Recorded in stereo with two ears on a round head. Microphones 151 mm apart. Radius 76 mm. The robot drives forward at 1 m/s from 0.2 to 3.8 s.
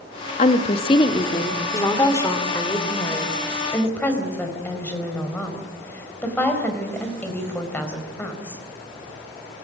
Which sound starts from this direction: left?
A woman speaking, at 0.4 s.